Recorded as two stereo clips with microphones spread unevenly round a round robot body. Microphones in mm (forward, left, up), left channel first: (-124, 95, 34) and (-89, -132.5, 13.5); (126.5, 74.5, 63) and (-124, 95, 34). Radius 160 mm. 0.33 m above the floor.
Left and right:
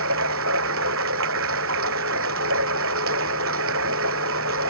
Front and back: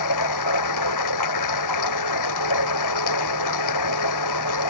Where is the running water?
30° right.